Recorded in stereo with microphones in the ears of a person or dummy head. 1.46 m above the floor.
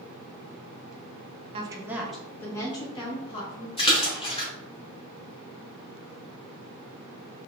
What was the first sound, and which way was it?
A woman speaking, 30° right (ahead or behind).